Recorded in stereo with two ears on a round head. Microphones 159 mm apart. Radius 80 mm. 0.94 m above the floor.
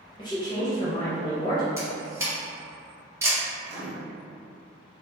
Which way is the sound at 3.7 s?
70° right (ahead or behind).